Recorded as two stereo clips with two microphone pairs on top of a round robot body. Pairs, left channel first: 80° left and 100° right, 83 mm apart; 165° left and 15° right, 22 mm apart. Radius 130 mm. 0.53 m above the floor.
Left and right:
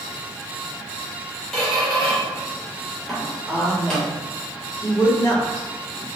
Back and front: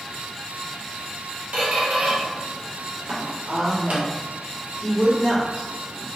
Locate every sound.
1.5 s a squeak: 5° right, 0.5 m
3.5 s a woman speaking: 110° left, 2.0 m